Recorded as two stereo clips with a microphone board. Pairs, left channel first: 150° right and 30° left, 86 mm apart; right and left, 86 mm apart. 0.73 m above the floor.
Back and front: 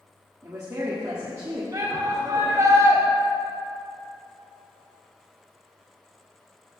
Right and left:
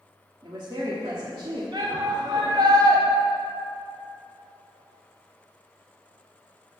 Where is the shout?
70° left, 2.5 m.